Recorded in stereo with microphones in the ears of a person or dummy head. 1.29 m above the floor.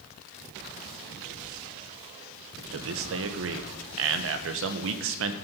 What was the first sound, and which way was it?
A man speaking, 65° right (ahead or behind).